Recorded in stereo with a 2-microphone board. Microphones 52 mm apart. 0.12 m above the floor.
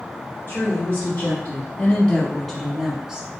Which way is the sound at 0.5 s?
40° left (ahead or behind).